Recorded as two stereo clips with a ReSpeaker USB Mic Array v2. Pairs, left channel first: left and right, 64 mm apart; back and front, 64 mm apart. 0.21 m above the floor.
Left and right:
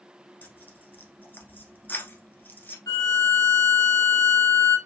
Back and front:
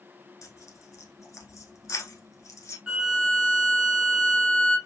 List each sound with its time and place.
0.4 s tearing paper: 145° left, 1.0 m
2.9 s a violin: 80° left, 1.2 m